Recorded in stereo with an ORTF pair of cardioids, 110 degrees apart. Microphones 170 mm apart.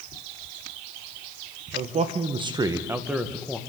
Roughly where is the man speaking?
Ahead right.